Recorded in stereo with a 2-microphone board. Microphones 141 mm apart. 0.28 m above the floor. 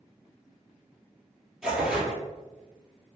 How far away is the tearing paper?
About 0.9 m.